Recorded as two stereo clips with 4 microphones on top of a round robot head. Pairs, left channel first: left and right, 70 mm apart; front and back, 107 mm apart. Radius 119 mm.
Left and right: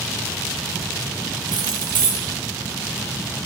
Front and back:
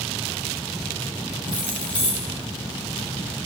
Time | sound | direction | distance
1.5 | keys jangling | 80° right | 1.1 m